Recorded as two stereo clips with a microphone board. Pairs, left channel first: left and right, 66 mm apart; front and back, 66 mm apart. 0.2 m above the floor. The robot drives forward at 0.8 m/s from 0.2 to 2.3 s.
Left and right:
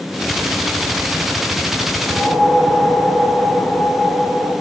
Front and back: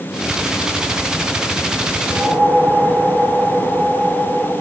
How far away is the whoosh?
About 1.5 m.